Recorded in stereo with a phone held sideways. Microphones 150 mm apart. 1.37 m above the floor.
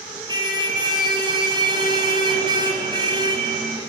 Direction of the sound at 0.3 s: 30° right (ahead or behind).